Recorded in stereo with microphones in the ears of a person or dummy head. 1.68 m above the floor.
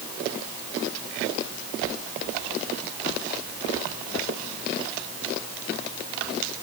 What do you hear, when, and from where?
Only background noise.